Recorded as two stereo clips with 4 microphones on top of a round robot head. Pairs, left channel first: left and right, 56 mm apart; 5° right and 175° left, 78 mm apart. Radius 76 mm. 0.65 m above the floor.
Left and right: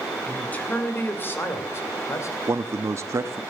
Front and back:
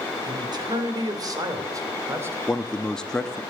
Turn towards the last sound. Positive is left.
turn(degrees=-85)